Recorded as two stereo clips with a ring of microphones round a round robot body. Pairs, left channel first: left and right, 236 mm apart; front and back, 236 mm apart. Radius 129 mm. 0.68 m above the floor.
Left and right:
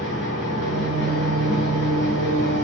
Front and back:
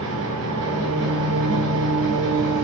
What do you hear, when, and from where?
0.0 s an engine running: 145° left, 3.5 m